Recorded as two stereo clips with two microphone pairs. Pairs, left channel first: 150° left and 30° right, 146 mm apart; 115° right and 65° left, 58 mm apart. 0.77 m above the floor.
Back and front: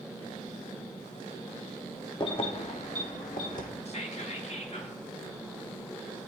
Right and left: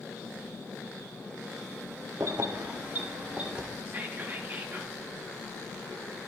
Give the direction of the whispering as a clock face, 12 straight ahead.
8 o'clock.